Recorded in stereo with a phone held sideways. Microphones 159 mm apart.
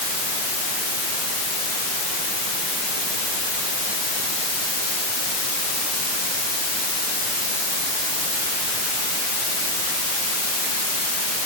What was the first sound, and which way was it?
Only background noise.